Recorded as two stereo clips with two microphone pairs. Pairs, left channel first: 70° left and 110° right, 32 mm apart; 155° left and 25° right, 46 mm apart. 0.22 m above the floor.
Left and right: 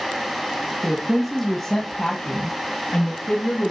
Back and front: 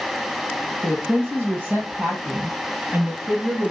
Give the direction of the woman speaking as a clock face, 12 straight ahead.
1 o'clock.